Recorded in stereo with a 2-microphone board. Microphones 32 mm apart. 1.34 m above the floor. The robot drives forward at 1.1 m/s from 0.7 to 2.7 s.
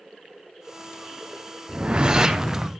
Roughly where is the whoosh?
Right.